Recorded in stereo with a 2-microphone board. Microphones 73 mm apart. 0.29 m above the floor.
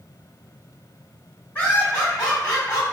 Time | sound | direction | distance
1.6 | laughter | 20° left (ahead or behind) | 1.7 m